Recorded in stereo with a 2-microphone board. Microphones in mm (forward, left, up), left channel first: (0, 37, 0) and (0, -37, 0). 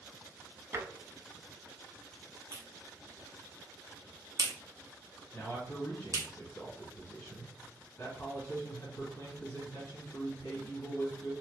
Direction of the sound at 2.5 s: 50° right (ahead or behind).